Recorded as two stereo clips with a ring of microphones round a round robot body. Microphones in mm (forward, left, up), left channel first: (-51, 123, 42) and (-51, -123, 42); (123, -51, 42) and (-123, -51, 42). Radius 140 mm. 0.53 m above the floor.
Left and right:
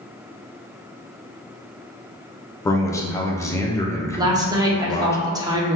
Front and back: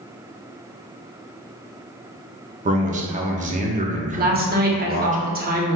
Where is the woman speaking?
155° right, 1.0 m.